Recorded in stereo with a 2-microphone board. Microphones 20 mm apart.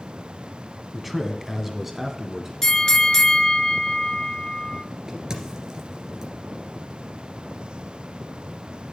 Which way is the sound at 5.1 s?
40° right (ahead or behind).